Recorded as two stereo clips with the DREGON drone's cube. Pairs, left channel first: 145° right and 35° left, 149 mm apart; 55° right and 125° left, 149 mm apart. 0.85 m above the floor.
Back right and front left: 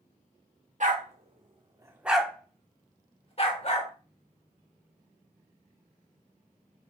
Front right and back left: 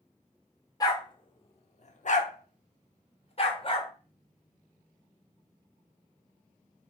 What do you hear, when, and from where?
0.8 s a dog barking: 5° left, 0.9 m; by 3.9 s 110° right, 1.2 m